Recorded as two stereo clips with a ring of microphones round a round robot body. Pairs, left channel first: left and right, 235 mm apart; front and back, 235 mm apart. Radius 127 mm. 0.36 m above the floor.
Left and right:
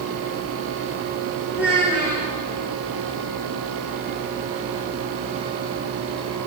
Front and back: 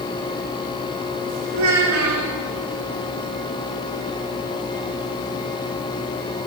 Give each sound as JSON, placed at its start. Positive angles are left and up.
{"t": 1.5, "sound": "a child speaking", "azimuth_deg": -175, "distance_m": 2.0}